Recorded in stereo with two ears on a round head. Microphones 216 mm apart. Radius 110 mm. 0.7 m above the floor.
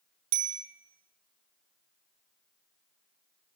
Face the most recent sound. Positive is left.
turn(degrees=-75)  # may be behind; listen again after turning